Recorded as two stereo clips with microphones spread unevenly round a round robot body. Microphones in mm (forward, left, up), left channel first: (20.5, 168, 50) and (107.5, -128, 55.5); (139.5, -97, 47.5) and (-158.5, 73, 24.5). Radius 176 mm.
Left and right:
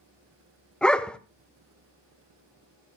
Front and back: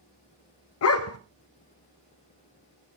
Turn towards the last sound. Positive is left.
turn(degrees=20)